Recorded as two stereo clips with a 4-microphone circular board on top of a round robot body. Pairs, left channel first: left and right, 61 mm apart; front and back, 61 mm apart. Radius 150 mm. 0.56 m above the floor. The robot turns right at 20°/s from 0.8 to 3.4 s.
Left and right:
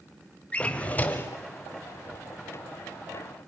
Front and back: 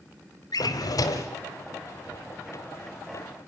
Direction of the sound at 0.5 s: 20° left.